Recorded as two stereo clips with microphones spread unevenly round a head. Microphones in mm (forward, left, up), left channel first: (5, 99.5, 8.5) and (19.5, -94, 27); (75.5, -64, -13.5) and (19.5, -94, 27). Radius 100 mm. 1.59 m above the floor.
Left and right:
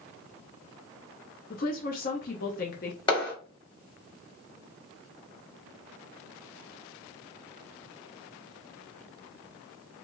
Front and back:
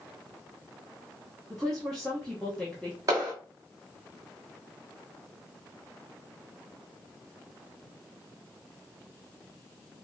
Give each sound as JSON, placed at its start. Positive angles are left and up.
{"t": 1.5, "sound": "a woman speaking", "azimuth_deg": 140, "distance_m": 0.6}
{"t": 3.1, "sound": "a clap", "azimuth_deg": 165, "distance_m": 1.7}